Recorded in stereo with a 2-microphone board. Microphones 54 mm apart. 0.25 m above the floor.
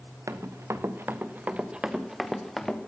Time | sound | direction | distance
0.3 | running footsteps | 70° right (ahead or behind) | 1.6 m